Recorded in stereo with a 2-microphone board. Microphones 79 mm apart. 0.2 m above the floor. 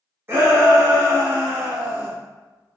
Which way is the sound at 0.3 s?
30° right (ahead or behind).